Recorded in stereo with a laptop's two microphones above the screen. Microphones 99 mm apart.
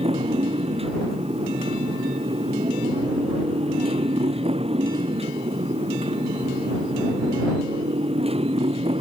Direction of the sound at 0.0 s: 80° right.